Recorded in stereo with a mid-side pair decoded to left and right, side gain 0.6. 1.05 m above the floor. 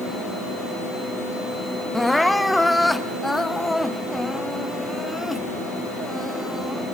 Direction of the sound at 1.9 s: 5° left.